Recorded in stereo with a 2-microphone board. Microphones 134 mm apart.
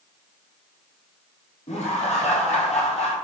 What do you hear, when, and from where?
1.7 s laughter: 55° left (ahead or behind), 3 m